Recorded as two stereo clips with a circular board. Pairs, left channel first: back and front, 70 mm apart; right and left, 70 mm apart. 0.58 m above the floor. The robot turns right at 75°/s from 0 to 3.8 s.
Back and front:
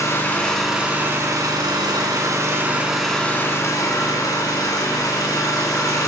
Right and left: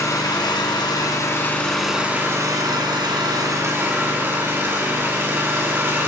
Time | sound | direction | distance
0.0 | an engine running | 135° right | 3 m